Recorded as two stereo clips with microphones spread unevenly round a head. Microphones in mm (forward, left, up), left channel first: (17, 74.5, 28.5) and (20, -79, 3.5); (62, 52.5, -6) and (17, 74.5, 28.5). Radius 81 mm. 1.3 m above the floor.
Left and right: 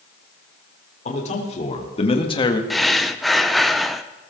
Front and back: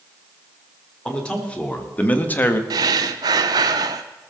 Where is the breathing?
Straight behind, 0.5 m.